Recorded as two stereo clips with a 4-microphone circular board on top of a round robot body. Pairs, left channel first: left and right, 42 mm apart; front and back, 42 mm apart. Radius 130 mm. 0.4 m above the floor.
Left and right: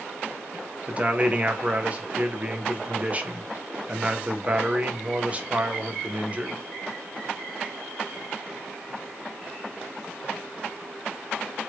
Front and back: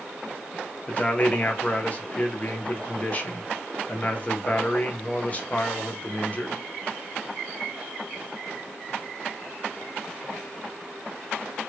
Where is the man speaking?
45° right, 1.0 m.